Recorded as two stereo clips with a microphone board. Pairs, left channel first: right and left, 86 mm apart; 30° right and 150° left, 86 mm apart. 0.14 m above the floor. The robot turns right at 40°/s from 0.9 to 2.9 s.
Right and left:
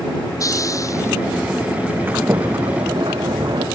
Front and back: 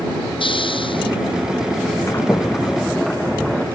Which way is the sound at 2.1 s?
25° left.